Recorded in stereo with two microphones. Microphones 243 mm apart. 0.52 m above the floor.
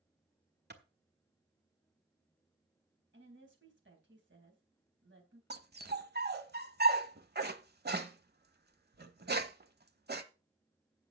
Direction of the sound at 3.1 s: 50° right (ahead or behind).